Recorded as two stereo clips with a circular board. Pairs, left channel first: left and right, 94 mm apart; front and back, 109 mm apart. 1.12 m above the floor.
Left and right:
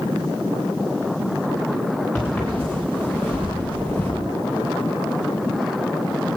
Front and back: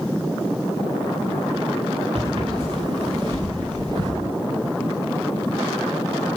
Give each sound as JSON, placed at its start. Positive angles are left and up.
{"t": 2.1, "sound": "footsteps", "azimuth_deg": 170, "distance_m": 8.0}